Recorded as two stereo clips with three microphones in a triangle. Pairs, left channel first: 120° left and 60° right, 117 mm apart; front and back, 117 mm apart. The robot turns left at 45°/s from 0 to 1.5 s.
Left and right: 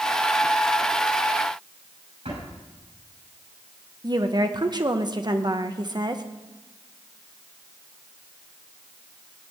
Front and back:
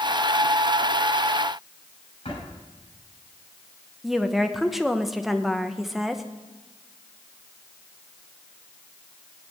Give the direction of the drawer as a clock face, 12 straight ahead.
1 o'clock.